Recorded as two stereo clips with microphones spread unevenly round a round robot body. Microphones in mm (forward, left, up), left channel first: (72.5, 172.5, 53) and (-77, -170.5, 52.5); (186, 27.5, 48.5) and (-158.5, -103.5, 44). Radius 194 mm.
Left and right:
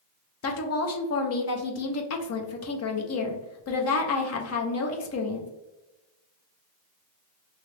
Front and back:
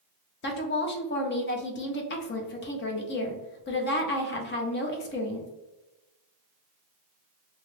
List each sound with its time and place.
0.4 s a woman speaking: 60° left, 0.6 m